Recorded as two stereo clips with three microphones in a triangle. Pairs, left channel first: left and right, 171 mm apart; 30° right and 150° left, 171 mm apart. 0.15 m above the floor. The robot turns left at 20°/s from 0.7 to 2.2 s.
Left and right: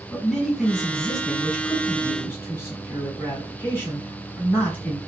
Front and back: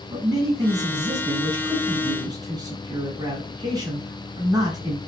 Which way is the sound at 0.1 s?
Straight behind.